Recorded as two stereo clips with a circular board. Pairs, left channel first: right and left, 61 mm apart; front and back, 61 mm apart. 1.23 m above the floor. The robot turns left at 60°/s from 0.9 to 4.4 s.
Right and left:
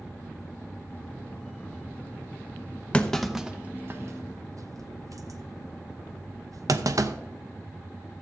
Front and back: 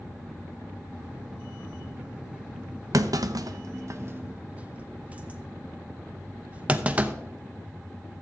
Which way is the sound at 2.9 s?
160° right.